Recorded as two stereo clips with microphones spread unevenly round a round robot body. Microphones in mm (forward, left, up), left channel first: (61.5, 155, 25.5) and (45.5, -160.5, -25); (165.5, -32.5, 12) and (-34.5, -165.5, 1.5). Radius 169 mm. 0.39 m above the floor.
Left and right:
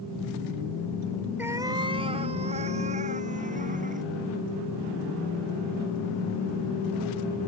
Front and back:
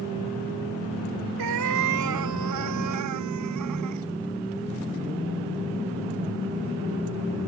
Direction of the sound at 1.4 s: Straight behind.